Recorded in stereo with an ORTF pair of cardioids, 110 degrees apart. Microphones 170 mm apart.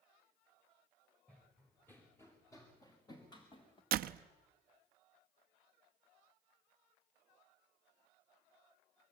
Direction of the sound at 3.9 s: 65° right.